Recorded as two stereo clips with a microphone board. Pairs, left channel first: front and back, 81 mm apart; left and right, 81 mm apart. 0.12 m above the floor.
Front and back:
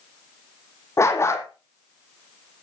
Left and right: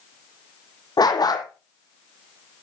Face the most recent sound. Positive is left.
turn(degrees=55)